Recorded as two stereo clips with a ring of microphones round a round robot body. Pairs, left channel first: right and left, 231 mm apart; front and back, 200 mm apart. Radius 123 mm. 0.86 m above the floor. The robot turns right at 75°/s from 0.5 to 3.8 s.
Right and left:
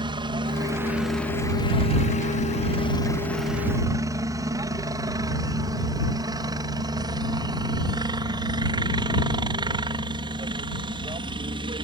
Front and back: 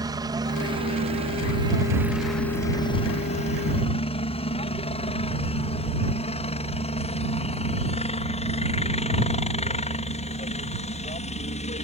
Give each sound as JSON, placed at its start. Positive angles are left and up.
{"t": 0.0, "sound": "a helicopter", "azimuth_deg": 135}